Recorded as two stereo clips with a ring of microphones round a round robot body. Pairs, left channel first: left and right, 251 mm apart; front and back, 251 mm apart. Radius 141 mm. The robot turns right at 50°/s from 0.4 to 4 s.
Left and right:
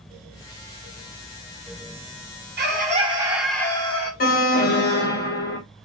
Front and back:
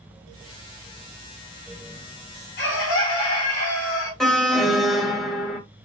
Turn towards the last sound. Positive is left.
turn(degrees=85)